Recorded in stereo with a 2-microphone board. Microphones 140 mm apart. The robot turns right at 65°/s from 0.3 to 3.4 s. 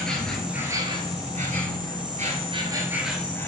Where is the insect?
175° left, 0.7 m; by 3.5 s 15° left, 0.7 m.